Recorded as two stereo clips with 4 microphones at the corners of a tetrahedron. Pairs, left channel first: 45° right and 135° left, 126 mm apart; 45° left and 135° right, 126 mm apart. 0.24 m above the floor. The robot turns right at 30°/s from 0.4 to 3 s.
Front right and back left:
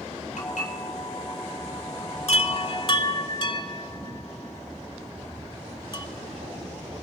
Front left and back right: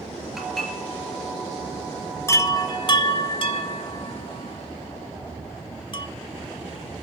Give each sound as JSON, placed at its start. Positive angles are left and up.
{"t": 0.4, "sound": "dishes clattering", "azimuth_deg": -45, "distance_m": 3.5}
{"t": 2.3, "sound": "a chime", "azimuth_deg": -20, "distance_m": 0.8}